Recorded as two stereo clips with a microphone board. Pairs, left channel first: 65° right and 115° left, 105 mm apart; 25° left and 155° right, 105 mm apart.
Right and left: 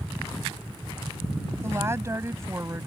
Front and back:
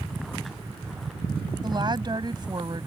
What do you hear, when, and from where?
1.6 s a woman speaking: 170° left